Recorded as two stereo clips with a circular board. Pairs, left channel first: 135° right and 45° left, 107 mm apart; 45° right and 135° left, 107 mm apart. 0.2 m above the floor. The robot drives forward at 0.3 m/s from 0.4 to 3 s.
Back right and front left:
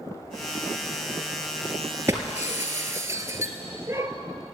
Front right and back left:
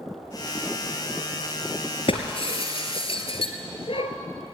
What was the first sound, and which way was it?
Breaking glass, 20° right.